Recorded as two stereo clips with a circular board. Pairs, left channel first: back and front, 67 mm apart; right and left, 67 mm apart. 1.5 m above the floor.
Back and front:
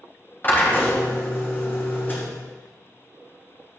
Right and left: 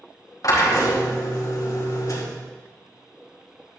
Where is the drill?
120° right, 4.5 m.